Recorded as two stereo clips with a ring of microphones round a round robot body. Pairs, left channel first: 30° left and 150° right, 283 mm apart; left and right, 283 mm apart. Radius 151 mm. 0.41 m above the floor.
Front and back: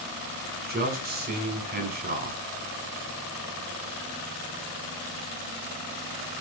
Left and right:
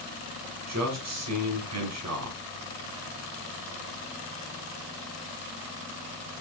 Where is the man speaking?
95° right, 2.5 m.